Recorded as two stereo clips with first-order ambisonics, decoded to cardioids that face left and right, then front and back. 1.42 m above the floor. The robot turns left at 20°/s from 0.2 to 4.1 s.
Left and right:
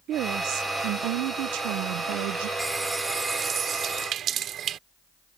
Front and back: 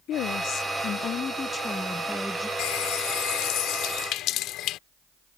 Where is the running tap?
5° right; by 4.8 s 35° right.